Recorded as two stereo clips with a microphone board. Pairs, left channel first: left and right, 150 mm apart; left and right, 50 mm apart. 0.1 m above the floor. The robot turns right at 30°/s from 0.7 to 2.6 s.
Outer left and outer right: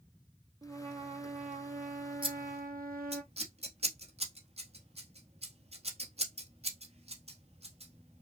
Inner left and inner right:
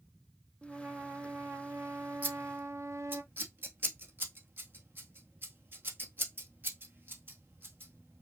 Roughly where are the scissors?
Right.